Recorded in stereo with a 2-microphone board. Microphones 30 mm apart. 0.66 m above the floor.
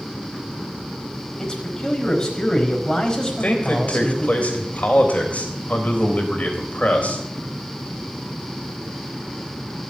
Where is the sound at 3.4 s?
50° left (ahead or behind), 4 m.